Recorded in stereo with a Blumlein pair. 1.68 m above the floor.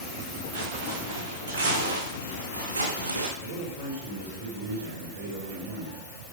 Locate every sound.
0.5 s footsteps: 45° right, 6.5 m; by 3.3 s 80° right, 5.5 m
3.4 s a man speaking: 45° right, 5.5 m